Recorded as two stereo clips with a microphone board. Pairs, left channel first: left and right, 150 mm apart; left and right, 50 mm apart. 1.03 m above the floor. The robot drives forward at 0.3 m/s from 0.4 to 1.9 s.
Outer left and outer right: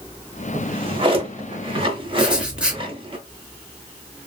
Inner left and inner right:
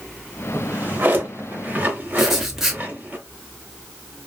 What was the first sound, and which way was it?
A drawer, 35° right (ahead or behind).